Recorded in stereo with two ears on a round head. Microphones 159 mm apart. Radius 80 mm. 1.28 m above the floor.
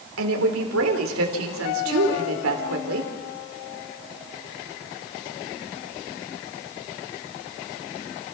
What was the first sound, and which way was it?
A woman speaking, 85° right.